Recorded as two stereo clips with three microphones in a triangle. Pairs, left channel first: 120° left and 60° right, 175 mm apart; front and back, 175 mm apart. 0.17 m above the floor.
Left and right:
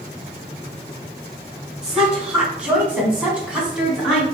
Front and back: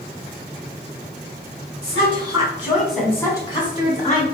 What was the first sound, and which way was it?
A woman speaking, 145° right.